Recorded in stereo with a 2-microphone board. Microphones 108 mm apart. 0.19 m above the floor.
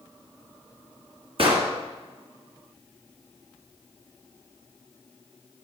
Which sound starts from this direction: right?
An explosion, at 1.4 s.